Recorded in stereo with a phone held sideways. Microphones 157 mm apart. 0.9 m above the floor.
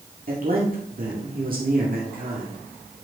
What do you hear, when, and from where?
0.3 s a man speaking: 60° right (ahead or behind), 1.9 m